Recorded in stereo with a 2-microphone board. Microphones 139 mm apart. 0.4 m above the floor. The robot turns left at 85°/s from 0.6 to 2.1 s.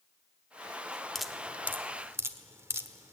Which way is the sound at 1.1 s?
Centre (ahead or behind).